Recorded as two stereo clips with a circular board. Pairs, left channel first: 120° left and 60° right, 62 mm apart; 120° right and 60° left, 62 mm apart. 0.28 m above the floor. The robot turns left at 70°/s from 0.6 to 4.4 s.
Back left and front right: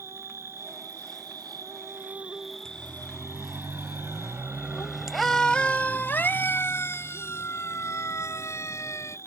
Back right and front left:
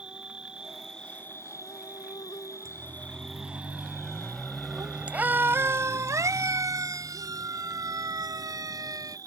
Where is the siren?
45° left; by 9.2 s 80° left.